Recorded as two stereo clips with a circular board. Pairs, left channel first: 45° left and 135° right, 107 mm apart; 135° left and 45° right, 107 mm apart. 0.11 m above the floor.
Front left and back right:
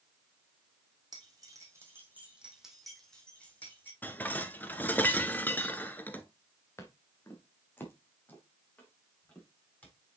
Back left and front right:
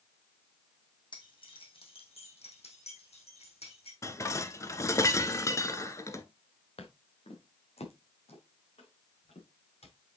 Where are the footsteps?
110° left, 2.5 m; by 9.9 s 120° left, 6.5 m.